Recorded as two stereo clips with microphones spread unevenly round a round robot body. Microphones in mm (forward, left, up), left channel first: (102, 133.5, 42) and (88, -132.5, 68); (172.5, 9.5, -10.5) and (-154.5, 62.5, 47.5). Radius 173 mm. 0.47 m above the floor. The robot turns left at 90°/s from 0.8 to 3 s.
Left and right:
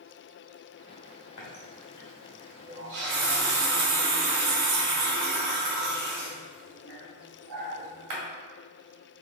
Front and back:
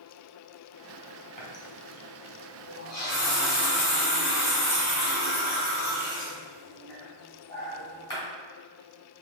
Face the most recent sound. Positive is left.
turn(degrees=-85)